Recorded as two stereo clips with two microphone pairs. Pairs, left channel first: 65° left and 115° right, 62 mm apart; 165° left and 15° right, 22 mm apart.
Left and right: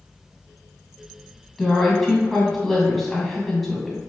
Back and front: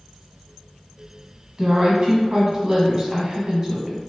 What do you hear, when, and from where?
1.6 s a woman speaking: 20° right, 1.1 m